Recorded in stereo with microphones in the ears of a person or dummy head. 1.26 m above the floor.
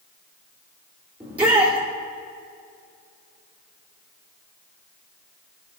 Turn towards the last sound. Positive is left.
turn(degrees=-10)  # may be behind; listen again after turning